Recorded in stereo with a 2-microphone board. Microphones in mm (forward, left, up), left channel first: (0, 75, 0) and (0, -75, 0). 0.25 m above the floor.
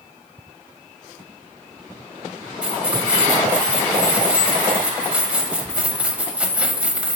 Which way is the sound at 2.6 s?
10° right (ahead or behind).